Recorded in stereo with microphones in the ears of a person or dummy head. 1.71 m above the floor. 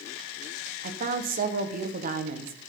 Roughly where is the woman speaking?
Right.